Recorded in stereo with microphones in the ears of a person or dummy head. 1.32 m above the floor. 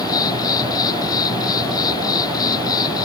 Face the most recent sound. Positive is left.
turn(degrees=25)  # may be behind; listen again after turning